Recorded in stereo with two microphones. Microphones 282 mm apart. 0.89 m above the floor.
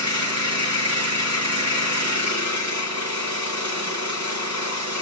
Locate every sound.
0.0 s an engine running: 80° left, 3 m